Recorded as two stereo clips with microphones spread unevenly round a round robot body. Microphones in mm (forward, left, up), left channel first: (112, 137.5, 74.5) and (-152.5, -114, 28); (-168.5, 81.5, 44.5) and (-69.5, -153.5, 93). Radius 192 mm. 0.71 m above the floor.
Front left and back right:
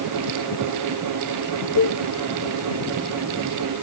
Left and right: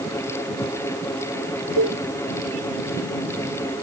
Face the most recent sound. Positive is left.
turn(degrees=-15)